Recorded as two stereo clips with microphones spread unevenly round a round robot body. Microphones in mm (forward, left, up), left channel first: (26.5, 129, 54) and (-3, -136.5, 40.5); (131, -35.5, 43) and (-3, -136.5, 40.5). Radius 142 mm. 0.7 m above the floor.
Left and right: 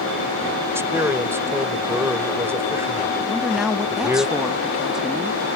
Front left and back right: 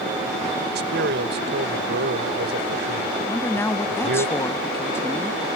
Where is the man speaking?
Straight behind.